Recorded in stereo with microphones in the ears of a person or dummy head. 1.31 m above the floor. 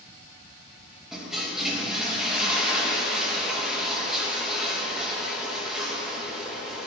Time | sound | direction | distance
1.1 | a toilet flushing | centre (ahead or behind) | 1.2 m